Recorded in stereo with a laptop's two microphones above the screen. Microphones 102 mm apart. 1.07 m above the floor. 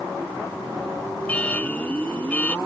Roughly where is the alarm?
Centre.